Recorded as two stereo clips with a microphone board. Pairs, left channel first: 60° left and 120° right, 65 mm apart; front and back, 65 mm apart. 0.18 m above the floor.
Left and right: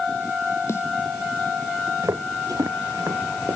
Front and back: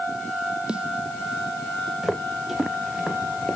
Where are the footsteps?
95° right; by 3.6 s 90° right.